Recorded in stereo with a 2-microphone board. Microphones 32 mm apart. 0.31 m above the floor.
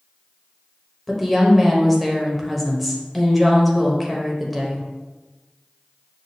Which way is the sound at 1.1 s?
Centre (ahead or behind).